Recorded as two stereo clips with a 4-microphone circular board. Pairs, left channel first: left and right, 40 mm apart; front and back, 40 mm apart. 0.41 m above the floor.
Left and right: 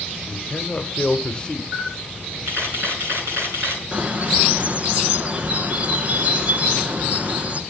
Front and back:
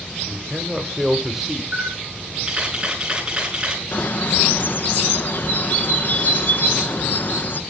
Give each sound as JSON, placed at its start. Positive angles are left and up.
{"t": 0.3, "sound": "a man speaking", "azimuth_deg": 115, "distance_m": 1.2}
{"t": 1.7, "sound": "a camera shutter", "azimuth_deg": -110, "distance_m": 7.5}
{"t": 3.9, "sound": "a bird", "azimuth_deg": -40, "distance_m": 1.1}